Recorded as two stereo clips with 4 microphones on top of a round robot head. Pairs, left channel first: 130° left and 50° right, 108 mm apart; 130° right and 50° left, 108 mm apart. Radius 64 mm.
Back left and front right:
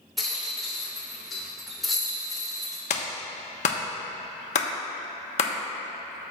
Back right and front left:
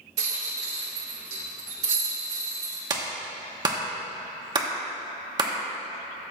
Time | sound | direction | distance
0.2 | a rattle | 40° left | 1.6 m
2.9 | a clap | 105° left | 1.0 m